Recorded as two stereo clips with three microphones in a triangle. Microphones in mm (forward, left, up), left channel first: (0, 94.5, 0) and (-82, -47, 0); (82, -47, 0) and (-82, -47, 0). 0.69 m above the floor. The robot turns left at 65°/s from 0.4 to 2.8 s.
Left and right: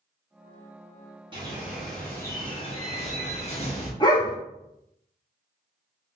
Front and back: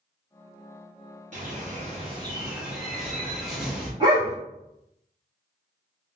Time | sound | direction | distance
1.3 | a bird | 170° right | 1.1 m
4.0 | a dog barking | 120° left | 1.0 m